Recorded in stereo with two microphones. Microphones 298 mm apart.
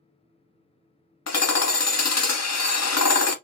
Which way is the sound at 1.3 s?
60° left (ahead or behind).